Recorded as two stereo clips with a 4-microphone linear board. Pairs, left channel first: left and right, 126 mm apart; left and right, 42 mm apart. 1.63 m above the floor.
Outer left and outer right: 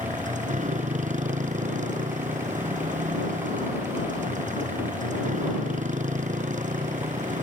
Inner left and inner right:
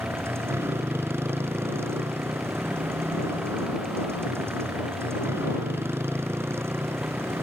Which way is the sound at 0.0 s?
80° right.